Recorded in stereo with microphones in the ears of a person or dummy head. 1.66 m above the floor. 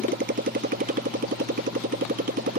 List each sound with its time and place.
0.0 s a motorcycle: 45° right (ahead or behind)